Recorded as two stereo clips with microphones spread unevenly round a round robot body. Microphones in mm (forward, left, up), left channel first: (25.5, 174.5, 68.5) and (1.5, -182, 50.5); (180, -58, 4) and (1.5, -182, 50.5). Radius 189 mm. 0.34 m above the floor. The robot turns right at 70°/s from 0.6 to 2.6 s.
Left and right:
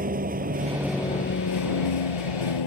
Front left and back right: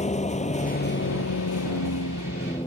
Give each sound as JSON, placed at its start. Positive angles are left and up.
{"t": 0.0, "sound": "a vehicle", "azimuth_deg": -25}